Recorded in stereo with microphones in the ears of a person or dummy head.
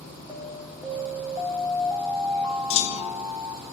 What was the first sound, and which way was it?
An alarm, centre (ahead or behind).